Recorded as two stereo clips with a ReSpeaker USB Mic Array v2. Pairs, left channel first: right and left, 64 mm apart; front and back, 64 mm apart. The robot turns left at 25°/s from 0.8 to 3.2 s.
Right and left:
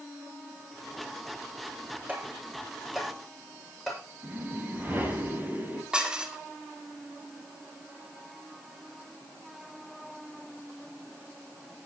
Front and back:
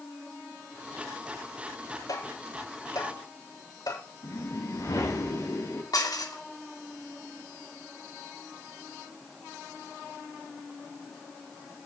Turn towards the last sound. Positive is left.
turn(degrees=15)